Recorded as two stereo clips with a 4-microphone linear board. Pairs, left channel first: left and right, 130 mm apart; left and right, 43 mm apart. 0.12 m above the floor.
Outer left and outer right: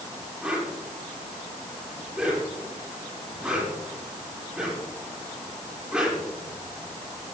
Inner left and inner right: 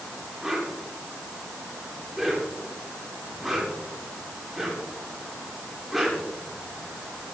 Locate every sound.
0.4 s a whoosh: 5° right (ahead or behind), 8 m